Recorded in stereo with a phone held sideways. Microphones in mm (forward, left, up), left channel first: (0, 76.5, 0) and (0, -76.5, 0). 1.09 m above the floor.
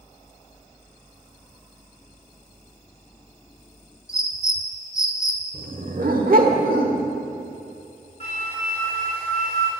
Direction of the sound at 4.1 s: 20° left (ahead or behind).